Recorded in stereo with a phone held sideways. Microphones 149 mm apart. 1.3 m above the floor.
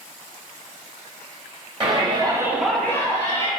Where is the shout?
35° right (ahead or behind), 1.0 m; by 3.5 s 25° left (ahead or behind), 1.4 m.